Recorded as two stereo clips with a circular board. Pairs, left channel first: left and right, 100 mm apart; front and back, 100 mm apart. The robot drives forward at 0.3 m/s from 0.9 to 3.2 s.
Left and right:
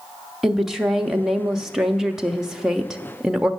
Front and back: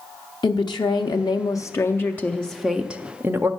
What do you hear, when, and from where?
0.4 s a woman speaking: 5° right, 0.7 m; by 3.5 s 165° right, 0.5 m